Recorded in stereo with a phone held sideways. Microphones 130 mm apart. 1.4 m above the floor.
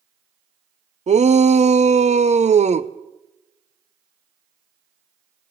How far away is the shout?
About 0.6 m.